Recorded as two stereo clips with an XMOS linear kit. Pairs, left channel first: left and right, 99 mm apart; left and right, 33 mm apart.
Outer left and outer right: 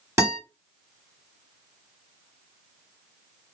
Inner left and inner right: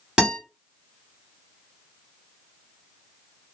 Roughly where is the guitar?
Right.